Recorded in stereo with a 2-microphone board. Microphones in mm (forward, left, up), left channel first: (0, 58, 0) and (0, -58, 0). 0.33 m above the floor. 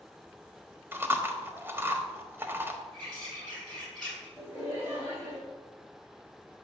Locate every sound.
0.9 s chewing: 20° right (ahead or behind), 1.2 m
2.9 s a bird: 10° left (ahead or behind), 5 m
4.4 s laughter: 20° right (ahead or behind), 4 m